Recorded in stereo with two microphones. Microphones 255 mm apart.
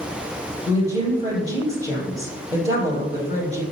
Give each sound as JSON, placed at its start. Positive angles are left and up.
{"t": 0.7, "sound": "a woman speaking", "side_deg": -10, "distance_m": 3.0}